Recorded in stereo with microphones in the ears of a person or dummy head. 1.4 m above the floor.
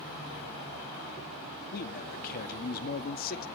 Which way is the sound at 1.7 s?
45° left (ahead or behind).